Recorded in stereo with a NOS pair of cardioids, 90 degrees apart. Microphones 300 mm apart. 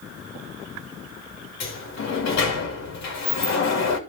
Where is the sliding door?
65° left, 2.5 m.